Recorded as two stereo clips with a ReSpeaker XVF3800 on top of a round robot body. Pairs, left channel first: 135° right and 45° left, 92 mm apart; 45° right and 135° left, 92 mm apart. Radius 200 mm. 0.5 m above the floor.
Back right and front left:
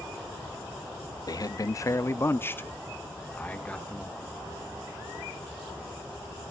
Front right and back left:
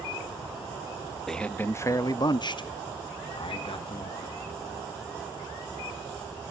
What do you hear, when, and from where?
1.3 s a man speaking: 130° right, 0.7 m; by 4.4 s 55° right, 2 m